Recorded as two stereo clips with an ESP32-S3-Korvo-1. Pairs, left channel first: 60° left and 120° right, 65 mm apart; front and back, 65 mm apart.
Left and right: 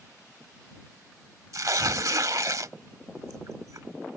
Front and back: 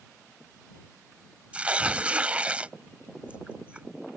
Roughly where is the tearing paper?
Right.